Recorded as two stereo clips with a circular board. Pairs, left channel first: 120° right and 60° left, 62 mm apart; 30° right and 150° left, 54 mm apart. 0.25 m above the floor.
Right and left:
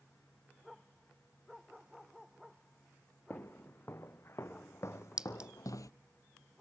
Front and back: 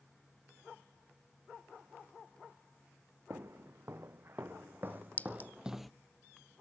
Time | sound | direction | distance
3.3 | footsteps | 175° right | 1.8 m
5.2 | a clink | 5° right | 0.6 m